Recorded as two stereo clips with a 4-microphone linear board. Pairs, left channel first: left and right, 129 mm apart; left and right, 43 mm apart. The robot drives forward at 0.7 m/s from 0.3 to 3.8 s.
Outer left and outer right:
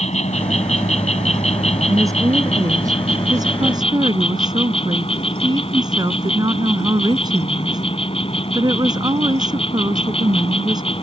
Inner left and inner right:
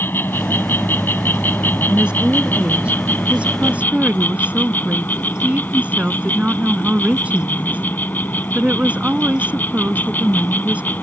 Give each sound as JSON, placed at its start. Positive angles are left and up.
{"t": 0.0, "sound": "an insect", "side_deg": 70}
{"t": 1.9, "sound": "a woman speaking", "side_deg": -25}